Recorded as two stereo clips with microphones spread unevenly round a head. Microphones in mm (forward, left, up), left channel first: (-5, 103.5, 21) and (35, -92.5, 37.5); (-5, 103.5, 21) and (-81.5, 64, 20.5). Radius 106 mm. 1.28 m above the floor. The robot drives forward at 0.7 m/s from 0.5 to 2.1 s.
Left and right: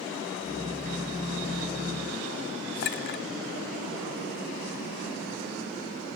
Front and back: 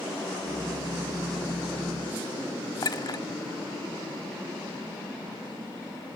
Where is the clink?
70° left, 1.4 m.